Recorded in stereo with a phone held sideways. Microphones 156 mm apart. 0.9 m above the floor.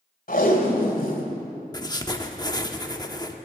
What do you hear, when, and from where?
0.3 s tape being pulled: 65° left (ahead or behind), 2.5 m
1.7 s writing: 25° left (ahead or behind), 0.9 m